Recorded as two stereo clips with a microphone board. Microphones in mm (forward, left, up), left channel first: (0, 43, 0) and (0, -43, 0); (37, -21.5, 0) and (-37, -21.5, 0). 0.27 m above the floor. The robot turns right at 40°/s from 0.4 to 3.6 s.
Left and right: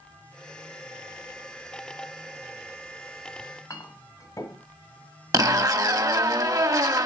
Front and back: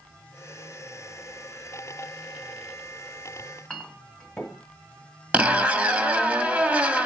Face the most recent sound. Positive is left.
turn(degrees=-115)